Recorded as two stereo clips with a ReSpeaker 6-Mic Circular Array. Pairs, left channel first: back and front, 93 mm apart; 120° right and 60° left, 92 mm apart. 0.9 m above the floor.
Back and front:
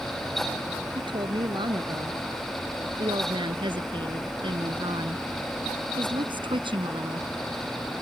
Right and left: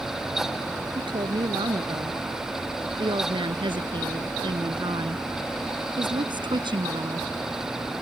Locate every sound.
0.9 s a woman speaking: 30° left; by 7.3 s 25° left